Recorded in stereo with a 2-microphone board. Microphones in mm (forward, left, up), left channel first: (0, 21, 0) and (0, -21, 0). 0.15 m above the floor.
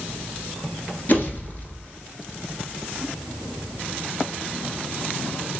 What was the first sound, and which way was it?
A pop, 45° left (ahead or behind).